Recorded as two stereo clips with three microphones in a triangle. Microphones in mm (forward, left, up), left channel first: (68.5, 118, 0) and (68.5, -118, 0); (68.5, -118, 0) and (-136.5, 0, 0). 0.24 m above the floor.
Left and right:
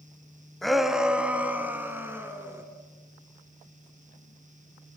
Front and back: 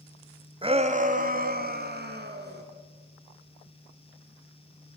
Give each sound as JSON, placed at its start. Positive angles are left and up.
{"t": 0.6, "sound": "a shout", "azimuth_deg": 175, "distance_m": 1.5}